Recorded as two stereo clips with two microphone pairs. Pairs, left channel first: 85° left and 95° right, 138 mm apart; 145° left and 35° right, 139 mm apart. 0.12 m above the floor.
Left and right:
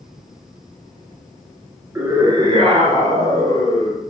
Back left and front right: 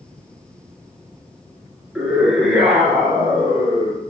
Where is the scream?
110° right, 1.3 m; by 4.1 s 115° right, 2.5 m.